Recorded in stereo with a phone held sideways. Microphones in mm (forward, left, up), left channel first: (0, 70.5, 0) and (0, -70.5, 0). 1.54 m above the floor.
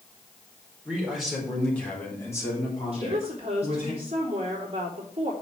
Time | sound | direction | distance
0.8 | a man speaking | 5° right (ahead or behind) | 4.5 m
2.9 | a woman speaking | 45° right (ahead or behind) | 3.5 m